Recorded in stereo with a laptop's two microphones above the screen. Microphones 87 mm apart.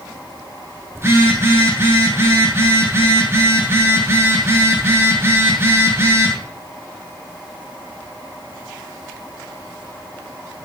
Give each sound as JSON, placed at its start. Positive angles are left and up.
{"t": 0.9, "sound": "a phone buzzing", "side_deg": -30, "distance_m": 8.5}